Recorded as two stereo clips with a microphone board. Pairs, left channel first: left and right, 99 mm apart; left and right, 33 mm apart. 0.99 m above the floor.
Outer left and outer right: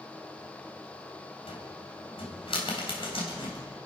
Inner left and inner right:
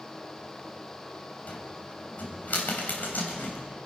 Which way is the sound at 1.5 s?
70° left (ahead or behind).